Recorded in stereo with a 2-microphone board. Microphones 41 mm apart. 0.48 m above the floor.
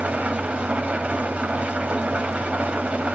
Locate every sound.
0.0 s an engine running: 35° right (ahead or behind), 1.0 m